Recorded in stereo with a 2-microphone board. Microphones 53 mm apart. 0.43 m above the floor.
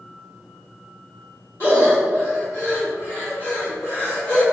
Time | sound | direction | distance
1.6 | breathing | 40° left (ahead or behind) | 2.5 m